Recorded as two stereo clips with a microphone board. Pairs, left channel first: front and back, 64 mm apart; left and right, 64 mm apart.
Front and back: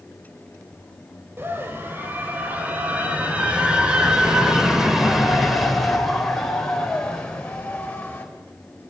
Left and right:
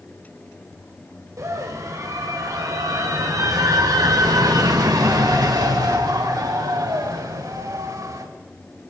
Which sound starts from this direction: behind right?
A scream, at 1.4 s.